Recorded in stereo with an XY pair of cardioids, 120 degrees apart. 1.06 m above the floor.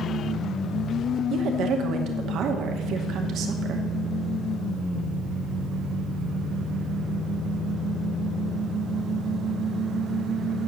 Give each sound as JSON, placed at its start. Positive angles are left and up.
{"t": 1.3, "sound": "a woman speaking", "azimuth_deg": -65, "distance_m": 2.0}